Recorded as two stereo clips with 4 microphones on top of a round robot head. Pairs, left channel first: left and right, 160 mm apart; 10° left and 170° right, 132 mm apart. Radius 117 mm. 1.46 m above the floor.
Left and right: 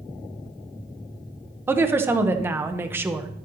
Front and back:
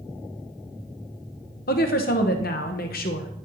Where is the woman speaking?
15° right, 0.9 m.